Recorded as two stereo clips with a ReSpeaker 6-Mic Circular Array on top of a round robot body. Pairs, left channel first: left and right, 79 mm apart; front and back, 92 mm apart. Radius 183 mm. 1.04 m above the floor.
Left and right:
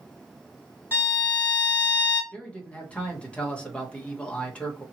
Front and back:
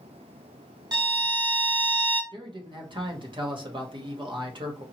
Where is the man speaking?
165° left, 1.4 m.